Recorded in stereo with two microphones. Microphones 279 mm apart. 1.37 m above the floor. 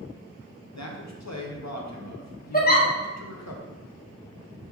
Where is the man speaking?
75° left (ahead or behind), 0.8 m.